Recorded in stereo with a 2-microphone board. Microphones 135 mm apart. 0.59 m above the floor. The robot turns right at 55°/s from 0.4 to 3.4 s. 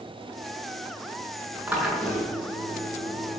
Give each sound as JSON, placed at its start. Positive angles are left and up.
{"t": 1.7, "sound": "a drill", "azimuth_deg": -10, "distance_m": 6.5}